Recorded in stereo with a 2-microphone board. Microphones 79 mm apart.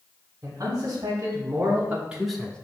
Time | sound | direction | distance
0.4 | a man speaking | 50° right (ahead or behind) | 1.6 m